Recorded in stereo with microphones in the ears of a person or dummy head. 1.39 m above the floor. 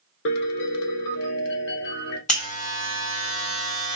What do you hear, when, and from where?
0.2 s a piano: 60° left (ahead or behind), 0.9 m
2.3 s a buzzer: 35° left (ahead or behind), 1.3 m